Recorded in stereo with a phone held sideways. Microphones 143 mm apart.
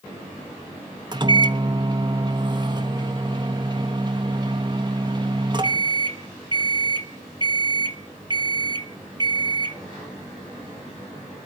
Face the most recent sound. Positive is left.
turn(degrees=-30)  # may be behind; listen again after turning